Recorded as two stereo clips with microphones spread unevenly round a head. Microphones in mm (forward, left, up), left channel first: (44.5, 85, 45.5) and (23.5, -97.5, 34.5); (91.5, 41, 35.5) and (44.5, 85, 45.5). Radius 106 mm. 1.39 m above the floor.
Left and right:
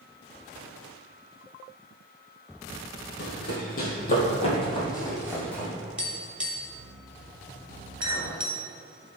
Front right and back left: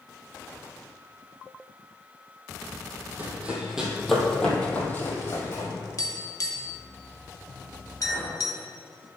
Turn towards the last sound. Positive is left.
turn(degrees=-120)